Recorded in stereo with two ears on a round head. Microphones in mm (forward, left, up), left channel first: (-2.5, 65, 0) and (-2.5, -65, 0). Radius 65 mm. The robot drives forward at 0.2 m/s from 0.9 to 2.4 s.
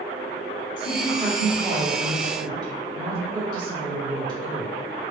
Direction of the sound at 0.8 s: 35° right (ahead or behind).